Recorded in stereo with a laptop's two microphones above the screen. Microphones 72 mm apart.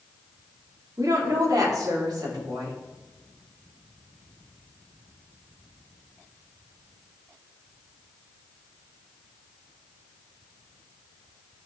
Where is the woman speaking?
55° right (ahead or behind), 2 m; by 2.8 s 70° right (ahead or behind), 4 m.